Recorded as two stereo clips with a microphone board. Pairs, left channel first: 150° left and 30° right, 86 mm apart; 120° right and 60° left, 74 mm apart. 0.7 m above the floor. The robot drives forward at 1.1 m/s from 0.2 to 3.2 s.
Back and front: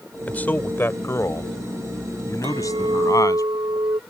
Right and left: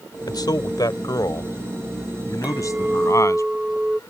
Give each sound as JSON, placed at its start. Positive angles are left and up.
{"t": 0.3, "sound": "a man speaking", "azimuth_deg": -140}
{"t": 2.4, "sound": "a clink", "azimuth_deg": -10}